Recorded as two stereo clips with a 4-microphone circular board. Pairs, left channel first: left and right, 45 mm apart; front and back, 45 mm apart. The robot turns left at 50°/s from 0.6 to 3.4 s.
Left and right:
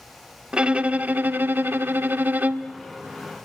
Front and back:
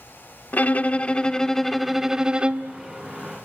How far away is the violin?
About 0.7 m.